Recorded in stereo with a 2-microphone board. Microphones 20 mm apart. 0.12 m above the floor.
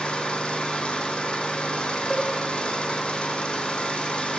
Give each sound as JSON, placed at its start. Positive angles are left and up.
{"t": 0.0, "sound": "an engine running", "side_deg": 65, "distance_m": 1.3}
{"t": 2.1, "sound": "a cowbell", "side_deg": -5, "distance_m": 3.5}